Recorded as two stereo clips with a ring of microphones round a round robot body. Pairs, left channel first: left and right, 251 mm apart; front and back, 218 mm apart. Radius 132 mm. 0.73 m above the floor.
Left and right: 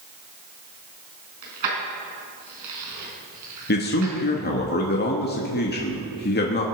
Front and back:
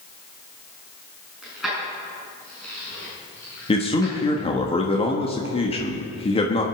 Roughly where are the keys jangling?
Right.